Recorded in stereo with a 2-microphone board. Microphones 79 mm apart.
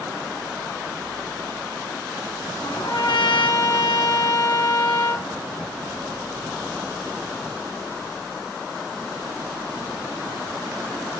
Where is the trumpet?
75° left (ahead or behind), 2 m.